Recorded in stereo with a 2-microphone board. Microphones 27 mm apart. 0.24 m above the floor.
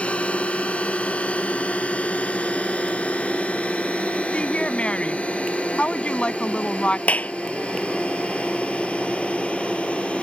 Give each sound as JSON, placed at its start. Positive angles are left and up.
{"t": 0.0, "sound": "a drone", "side_deg": 60}
{"t": 4.3, "sound": "a woman speaking", "side_deg": 55}
{"t": 7.1, "sound": "a clap", "side_deg": 75}